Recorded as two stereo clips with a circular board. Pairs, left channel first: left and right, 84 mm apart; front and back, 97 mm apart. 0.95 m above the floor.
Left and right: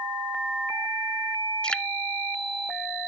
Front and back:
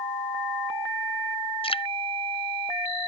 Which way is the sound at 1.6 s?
10° left.